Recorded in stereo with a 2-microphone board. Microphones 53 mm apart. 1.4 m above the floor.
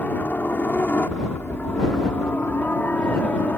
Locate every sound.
0.0 s a helicopter: 35° left (ahead or behind); by 3.6 s 40° left (ahead or behind)